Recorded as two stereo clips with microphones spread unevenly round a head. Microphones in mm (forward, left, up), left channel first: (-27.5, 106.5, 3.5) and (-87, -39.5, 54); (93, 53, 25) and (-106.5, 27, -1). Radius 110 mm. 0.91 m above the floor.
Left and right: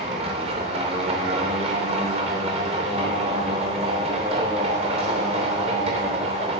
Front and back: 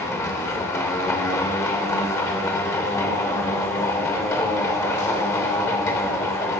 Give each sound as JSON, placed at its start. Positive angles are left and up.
{"t": 0.0, "sound": "a machine running", "azimuth_deg": -65, "distance_m": 0.9}